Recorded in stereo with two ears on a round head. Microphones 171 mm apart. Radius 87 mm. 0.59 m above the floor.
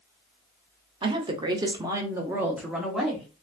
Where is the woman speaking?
25° right (ahead or behind), 0.7 m; by 3.3 s centre (ahead or behind), 1.0 m.